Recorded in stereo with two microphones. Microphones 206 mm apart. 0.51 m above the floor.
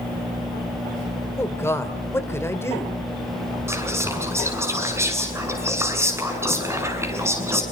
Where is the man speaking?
10° left (ahead or behind), 2.5 m.